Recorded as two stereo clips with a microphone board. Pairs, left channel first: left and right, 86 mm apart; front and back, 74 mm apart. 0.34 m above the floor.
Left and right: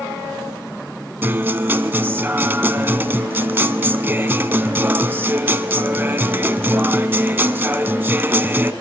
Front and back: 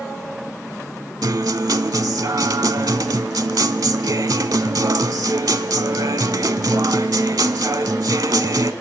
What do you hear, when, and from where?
1.2 s a guitar: 155° right, 0.6 m